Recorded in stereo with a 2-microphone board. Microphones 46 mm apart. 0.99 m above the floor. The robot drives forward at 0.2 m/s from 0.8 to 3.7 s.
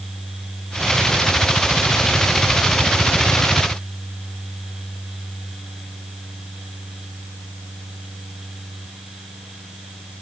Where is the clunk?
No clunk in this recording.